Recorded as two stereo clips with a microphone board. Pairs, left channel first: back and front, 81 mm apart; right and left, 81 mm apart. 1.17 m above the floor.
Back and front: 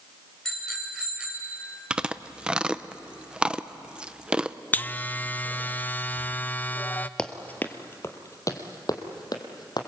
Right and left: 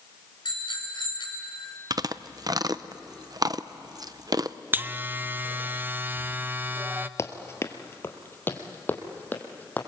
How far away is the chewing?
About 0.6 m.